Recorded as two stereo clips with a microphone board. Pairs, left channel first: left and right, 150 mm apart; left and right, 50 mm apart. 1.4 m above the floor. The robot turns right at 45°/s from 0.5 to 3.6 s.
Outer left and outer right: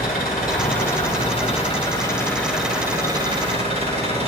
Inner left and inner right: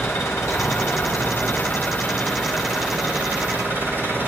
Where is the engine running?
85° left, 6 m; by 4.3 s 135° right, 6 m.